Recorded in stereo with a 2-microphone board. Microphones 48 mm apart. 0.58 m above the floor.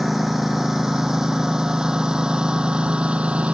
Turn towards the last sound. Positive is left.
turn(degrees=-25)  # may be behind; listen again after turning